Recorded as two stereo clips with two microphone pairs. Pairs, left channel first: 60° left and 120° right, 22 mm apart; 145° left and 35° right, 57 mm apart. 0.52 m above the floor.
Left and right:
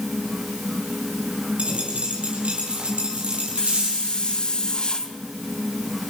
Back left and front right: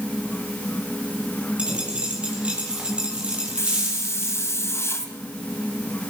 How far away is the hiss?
About 3 m.